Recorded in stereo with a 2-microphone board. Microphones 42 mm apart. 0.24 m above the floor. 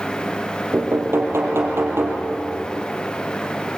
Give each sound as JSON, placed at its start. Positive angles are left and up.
{"t": 0.7, "sound": "knocking", "side_deg": -65, "distance_m": 4.5}